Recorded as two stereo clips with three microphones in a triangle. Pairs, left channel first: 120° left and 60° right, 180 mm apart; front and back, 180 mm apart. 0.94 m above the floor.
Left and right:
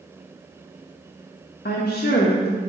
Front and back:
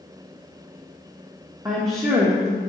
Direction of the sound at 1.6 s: 115° left.